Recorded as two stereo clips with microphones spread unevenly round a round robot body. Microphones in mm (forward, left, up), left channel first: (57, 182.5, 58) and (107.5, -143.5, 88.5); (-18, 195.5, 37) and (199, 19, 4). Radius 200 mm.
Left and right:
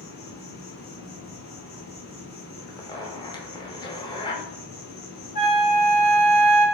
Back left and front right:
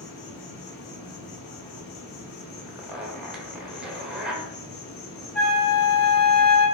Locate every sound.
0.0 s an insect: 155° left, 0.7 m
2.7 s a zipper: 35° left, 0.9 m
5.3 s a flute: 85° left, 1.8 m